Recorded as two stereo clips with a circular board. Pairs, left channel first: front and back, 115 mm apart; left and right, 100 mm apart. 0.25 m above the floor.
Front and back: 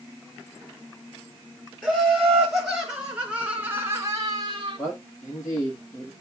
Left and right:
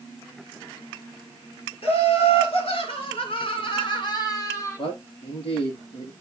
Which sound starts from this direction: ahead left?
A man speaking, at 4.8 s.